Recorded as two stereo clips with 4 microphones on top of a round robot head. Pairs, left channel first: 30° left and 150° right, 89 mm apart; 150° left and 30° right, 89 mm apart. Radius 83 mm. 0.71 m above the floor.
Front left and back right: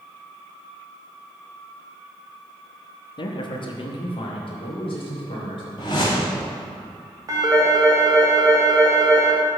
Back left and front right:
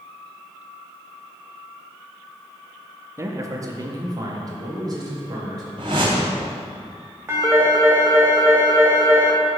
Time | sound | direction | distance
3.2 | a man speaking | 20° left | 0.8 m
5.8 | a whoosh | 5° right | 0.7 m
7.3 | a phone ringing | 95° right | 1.4 m